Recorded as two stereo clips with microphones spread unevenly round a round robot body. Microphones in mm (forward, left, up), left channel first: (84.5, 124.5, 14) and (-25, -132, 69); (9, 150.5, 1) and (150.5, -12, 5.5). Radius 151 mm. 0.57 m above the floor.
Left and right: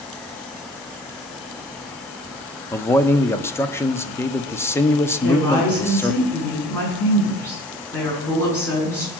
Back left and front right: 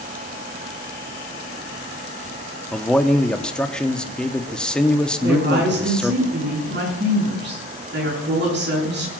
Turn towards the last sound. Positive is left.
turn(degrees=-15)